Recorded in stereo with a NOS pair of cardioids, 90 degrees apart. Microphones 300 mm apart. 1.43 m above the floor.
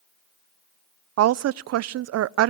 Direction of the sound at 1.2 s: 55° right.